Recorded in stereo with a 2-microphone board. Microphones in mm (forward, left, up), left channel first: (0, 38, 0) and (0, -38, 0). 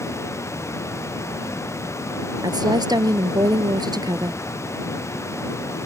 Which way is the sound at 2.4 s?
65° right (ahead or behind).